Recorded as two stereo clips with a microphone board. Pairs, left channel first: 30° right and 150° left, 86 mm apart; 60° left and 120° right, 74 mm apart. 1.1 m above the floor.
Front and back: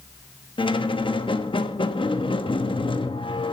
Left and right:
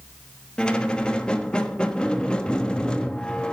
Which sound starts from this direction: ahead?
A squeak, at 0.6 s.